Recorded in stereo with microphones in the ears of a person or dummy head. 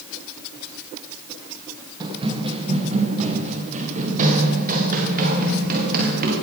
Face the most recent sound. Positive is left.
turn(degrees=-50)  # may be behind; listen again after turning